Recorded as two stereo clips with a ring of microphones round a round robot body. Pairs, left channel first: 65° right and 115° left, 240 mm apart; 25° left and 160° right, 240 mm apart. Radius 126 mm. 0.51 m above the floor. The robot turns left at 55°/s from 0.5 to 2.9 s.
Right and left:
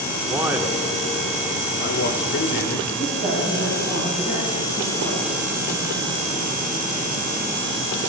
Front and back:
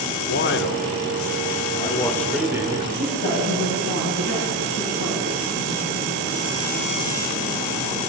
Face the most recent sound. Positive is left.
turn(degrees=50)